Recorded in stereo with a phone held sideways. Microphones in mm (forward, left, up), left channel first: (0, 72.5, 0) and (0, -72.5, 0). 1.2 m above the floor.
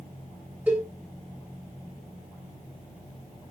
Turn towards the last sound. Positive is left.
turn(degrees=-10)  # may be behind; listen again after turning